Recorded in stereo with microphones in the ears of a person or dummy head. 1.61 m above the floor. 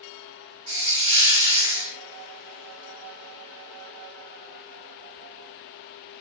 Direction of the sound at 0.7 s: 30° right (ahead or behind).